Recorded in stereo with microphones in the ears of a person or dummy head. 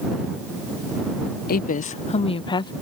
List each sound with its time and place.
1.5 s a woman speaking: 50° left (ahead or behind); by 2.7 s 25° left (ahead or behind)